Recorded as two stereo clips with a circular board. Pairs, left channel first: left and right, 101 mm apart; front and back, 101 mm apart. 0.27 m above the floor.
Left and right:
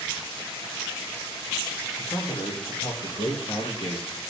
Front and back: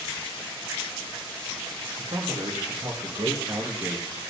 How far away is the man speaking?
About 4.5 m.